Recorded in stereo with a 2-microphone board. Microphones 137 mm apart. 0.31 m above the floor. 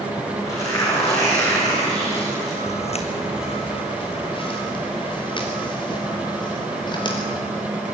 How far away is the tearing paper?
About 7.5 m.